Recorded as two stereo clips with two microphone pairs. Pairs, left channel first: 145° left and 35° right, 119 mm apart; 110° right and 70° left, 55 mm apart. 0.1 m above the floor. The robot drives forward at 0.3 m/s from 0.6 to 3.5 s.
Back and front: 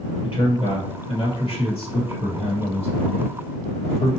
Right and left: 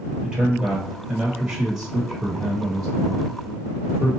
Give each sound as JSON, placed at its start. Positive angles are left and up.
{"t": 0.2, "sound": "a man speaking", "azimuth_deg": 145, "distance_m": 1.5}